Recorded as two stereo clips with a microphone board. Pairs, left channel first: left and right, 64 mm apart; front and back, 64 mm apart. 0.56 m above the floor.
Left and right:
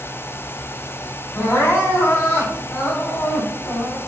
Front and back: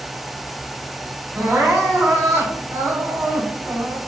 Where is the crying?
140° left, 1.5 m.